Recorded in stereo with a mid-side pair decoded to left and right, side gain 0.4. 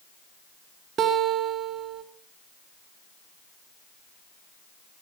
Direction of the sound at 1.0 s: 70° right.